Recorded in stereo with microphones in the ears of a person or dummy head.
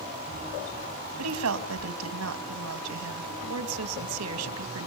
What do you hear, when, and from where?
1.2 s a woman speaking: 80° right, 2.5 m